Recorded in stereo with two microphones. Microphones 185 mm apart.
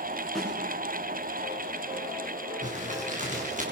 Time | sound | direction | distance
0.3 | a snare drum | centre (ahead or behind) | 9.5 m
2.6 | crumpling | 45° right (ahead or behind) | 5 m